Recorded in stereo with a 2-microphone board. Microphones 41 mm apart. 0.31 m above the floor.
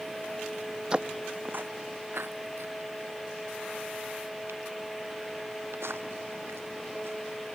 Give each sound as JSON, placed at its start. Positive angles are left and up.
{"t": 0.9, "sound": "footsteps", "side_deg": -25}